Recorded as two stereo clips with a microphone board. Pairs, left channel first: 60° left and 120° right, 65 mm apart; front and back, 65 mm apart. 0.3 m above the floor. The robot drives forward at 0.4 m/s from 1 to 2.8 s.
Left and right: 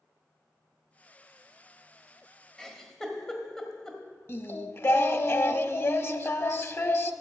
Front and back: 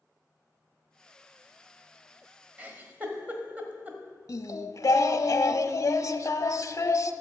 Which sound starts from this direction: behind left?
A giggle, at 2.6 s.